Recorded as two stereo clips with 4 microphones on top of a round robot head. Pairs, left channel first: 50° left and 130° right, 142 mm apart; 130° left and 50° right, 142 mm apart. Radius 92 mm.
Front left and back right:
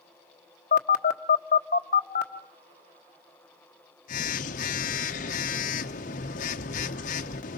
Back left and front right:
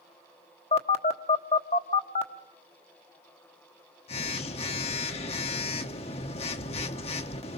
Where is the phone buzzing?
80° left, 1.1 m.